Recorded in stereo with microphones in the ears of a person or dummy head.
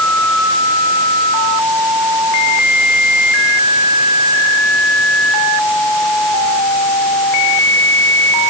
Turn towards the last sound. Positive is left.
No sound to turn to.